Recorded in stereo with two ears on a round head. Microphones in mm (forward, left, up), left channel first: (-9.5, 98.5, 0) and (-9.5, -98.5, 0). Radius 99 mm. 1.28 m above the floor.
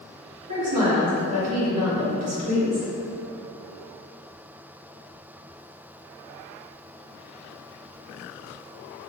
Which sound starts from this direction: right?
A woman speaking, at 0.5 s.